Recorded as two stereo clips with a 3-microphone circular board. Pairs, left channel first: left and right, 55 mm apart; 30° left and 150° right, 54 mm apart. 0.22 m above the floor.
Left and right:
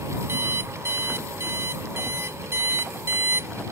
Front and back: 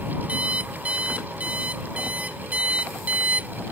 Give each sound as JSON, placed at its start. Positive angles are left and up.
{"t": 0.3, "sound": "an alarm clock", "azimuth_deg": -95}